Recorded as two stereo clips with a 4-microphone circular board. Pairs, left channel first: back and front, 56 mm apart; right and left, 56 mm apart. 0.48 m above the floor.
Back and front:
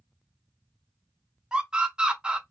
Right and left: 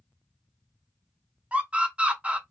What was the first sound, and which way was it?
A scream, 50° left.